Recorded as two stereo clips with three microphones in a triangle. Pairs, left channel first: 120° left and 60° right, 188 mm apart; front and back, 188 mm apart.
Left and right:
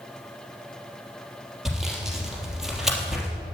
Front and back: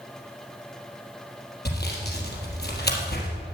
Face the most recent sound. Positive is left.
turn(degrees=25)